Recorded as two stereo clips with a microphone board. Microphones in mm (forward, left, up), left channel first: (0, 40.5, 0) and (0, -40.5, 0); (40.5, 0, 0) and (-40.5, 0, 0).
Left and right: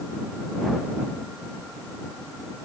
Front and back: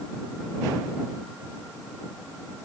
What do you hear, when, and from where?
Only background noise.